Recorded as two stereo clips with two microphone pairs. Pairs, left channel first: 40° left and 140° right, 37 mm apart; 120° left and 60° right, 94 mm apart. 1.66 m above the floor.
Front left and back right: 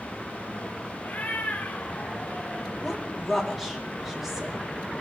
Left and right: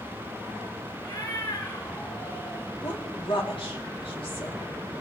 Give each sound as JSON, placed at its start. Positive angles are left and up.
{"t": 1.0, "sound": "a cat meowing", "azimuth_deg": 80, "distance_m": 3.0}
{"t": 2.8, "sound": "a woman speaking", "azimuth_deg": 135, "distance_m": 3.5}